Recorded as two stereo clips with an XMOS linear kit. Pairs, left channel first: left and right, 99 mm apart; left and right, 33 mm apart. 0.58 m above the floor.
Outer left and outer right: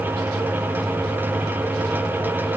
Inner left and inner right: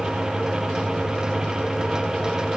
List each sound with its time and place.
Only background noise.